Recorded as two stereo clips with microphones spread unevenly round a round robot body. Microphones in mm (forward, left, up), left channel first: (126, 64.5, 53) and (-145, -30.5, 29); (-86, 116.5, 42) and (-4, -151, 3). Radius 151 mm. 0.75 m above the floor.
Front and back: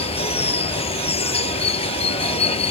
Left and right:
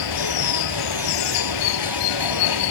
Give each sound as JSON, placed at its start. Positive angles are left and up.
{"t": 0.0, "sound": "running water", "azimuth_deg": 90}